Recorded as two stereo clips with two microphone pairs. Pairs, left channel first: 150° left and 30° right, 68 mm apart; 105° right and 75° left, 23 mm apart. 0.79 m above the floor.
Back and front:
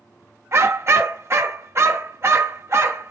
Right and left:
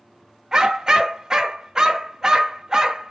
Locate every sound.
0.5 s a dog barking: 15° left, 1.0 m